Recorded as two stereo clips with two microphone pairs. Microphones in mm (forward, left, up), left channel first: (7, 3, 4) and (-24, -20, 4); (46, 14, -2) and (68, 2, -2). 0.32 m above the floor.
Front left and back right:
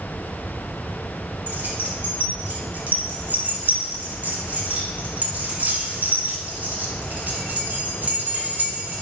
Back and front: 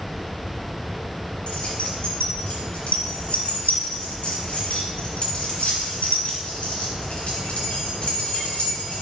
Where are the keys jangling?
175° left, 2 m.